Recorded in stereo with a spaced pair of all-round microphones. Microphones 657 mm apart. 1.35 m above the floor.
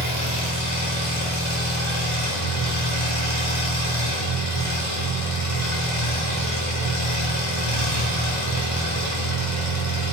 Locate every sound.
0.0 s an engine running: 35° left (ahead or behind), 3 m